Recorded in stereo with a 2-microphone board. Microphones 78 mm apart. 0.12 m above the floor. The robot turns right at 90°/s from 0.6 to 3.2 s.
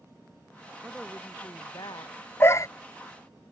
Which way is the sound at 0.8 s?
20° right.